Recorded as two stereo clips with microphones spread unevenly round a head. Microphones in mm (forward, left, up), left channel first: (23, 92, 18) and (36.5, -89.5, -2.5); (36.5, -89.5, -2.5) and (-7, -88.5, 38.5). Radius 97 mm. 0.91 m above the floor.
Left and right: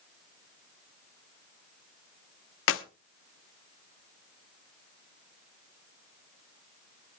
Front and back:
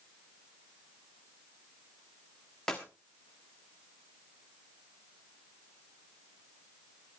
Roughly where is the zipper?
No zipper in this recording.